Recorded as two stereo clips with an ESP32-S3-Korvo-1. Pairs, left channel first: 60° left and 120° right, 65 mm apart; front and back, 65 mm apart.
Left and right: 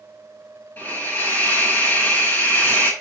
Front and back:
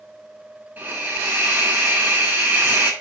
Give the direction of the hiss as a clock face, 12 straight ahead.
8 o'clock.